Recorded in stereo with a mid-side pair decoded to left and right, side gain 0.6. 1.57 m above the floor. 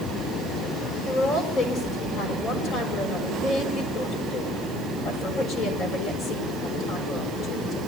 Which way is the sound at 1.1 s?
45° left.